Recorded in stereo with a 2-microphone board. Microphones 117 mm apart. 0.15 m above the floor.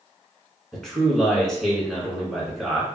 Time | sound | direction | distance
0.7 | a man speaking | 5° left (ahead or behind) | 1.3 m